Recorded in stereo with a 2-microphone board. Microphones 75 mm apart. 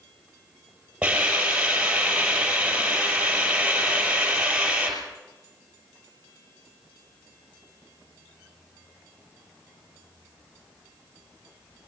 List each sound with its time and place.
1.0 s a hiss: 15° right (ahead or behind), 5.5 m